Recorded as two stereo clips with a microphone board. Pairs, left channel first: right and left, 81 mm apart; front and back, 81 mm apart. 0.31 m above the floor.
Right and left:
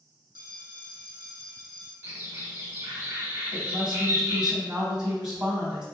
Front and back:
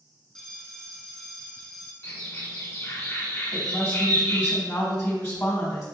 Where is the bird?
40° left, 1.4 m.